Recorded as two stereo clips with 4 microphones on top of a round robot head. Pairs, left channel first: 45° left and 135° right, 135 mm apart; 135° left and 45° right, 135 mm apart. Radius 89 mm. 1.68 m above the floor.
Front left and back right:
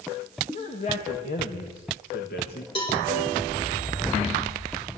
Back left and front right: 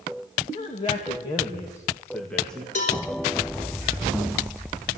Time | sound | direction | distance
0.5 | a man speaking | 90° left | 2.5 m
2.8 | a cowbell | 100° left | 4.5 m